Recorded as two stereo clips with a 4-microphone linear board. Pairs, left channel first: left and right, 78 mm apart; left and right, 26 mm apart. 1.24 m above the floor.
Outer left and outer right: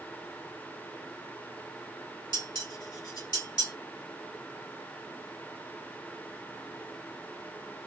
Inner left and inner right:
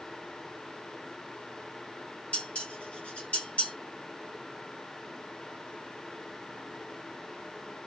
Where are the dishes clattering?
60° left (ahead or behind), 1.8 m.